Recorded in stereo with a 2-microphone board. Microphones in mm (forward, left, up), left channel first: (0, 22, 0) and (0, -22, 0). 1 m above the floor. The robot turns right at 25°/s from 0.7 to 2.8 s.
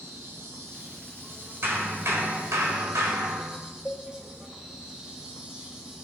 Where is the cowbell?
30° left (ahead or behind), 1.1 m.